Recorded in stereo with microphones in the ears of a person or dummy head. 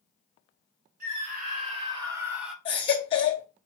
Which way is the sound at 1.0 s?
55° right (ahead or behind).